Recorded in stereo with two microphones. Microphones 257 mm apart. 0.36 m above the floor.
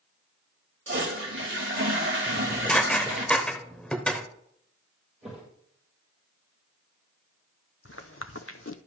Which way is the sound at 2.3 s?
5° left (ahead or behind).